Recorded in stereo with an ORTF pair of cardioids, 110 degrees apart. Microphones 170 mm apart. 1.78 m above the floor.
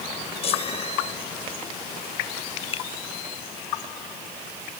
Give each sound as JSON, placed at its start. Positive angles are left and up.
{"t": 0.4, "sound": "a chime", "azimuth_deg": 40}
{"t": 2.7, "sound": "a finger snap", "azimuth_deg": 35}